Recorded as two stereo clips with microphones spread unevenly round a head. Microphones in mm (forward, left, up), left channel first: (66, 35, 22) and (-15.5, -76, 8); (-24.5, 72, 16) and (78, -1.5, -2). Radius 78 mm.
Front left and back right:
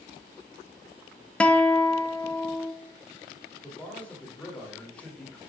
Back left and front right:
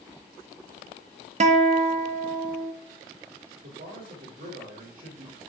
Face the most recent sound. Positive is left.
turn(degrees=-30)